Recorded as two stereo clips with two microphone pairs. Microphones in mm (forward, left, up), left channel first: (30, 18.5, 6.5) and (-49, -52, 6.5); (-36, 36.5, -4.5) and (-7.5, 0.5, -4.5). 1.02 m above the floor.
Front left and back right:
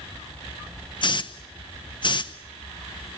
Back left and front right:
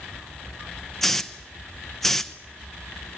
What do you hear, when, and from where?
1.0 s a hiss: 55° left, 0.9 m